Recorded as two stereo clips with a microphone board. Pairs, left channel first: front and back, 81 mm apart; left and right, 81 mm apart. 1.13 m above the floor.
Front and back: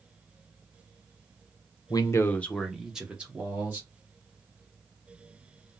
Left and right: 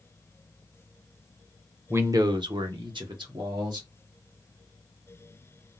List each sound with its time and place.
1.9 s a man speaking: 30° right, 0.6 m; by 3.9 s 115° right, 1.6 m